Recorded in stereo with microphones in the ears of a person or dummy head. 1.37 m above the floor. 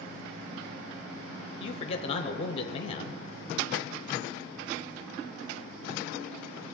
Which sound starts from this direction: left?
A man speaking, at 1.6 s.